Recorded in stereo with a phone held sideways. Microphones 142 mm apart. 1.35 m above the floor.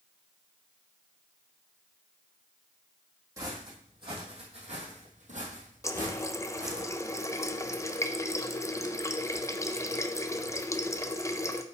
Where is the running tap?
20° left (ahead or behind), 0.5 m.